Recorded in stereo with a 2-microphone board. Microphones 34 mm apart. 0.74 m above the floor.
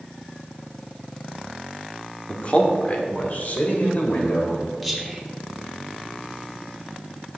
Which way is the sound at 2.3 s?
30° left (ahead or behind).